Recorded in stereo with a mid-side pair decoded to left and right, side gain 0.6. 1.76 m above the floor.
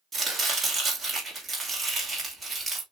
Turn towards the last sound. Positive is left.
turn(degrees=-20)